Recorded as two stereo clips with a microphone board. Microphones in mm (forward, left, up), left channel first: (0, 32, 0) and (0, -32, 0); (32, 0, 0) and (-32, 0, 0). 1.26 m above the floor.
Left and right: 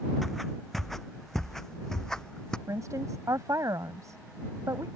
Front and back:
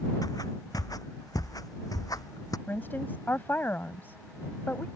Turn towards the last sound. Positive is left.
turn(degrees=-60)